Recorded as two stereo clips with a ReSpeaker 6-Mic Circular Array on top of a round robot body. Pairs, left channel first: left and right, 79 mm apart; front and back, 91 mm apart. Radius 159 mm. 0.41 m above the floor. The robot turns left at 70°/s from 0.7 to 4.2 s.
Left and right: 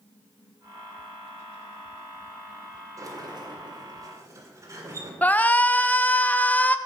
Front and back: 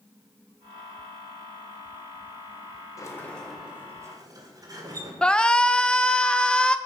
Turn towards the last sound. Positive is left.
turn(degrees=65)